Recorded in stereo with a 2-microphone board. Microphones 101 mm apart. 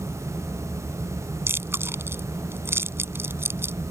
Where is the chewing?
25° right (ahead or behind).